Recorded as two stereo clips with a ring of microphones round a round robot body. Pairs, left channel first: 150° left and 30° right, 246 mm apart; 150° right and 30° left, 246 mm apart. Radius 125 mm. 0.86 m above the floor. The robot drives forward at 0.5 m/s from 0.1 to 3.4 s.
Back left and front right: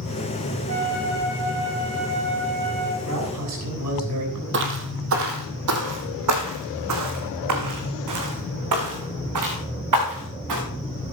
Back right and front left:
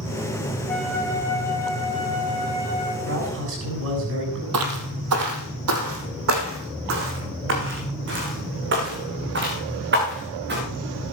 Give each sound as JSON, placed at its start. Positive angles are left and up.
{"t": 0.7, "sound": "a flute", "azimuth_deg": -65, "distance_m": 4.0}
{"t": 3.0, "sound": "a man speaking", "azimuth_deg": -5, "distance_m": 7.0}
{"t": 4.5, "sound": "footsteps", "azimuth_deg": 10, "distance_m": 1.8}